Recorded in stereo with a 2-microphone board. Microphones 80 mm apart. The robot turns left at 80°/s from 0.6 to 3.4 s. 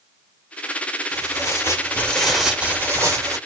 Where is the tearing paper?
100° left, 1.2 m; by 3.4 s 85° right, 1.2 m.